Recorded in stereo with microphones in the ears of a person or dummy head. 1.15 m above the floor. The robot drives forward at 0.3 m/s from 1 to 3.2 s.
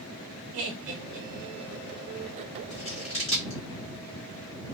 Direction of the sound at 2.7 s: 35° left (ahead or behind).